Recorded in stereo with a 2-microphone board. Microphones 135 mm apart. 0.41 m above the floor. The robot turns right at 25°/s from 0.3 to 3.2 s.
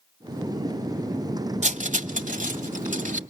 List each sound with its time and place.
1.6 s cutlery clinking: 60° right (ahead or behind), 1.3 m; by 3.2 s 70° right (ahead or behind), 1.3 m